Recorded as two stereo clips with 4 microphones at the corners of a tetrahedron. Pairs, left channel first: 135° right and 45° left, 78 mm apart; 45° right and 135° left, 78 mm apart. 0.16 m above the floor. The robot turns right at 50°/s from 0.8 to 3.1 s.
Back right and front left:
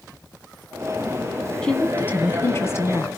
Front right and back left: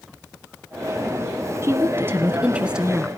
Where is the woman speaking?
150° left, 1.5 m; by 3.1 s 135° right, 1.5 m.